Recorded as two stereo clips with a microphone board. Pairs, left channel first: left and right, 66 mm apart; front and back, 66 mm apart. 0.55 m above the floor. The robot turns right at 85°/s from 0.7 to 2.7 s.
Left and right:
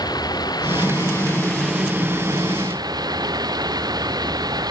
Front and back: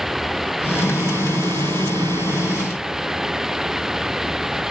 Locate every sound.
0.0 s running water: 95° left; by 4.7 s 95° right